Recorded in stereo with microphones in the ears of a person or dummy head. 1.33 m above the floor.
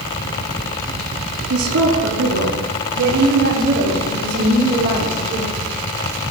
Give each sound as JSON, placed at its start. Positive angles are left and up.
{"t": 1.5, "sound": "a woman speaking", "side_deg": -75, "distance_m": 3.0}